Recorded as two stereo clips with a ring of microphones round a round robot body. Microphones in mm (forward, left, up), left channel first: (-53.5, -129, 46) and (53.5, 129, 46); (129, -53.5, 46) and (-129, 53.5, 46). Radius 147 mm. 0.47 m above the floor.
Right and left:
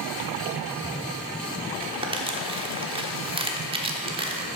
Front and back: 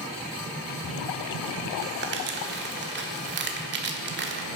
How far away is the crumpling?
About 1.2 m.